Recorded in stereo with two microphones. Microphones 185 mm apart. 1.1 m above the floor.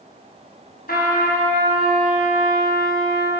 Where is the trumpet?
55° left (ahead or behind), 4.5 m.